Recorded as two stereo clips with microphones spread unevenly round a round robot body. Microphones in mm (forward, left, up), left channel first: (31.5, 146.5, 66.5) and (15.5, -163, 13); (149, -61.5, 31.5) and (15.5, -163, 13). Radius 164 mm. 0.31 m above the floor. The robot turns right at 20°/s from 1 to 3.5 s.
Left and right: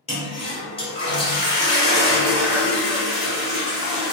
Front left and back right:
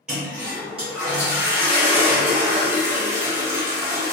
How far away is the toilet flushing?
About 0.9 m.